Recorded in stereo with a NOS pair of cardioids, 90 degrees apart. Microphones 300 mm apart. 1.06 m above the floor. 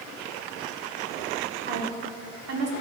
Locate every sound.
1.7 s a woman speaking: 40° right, 2.5 m; by 2.7 s 55° right, 2.5 m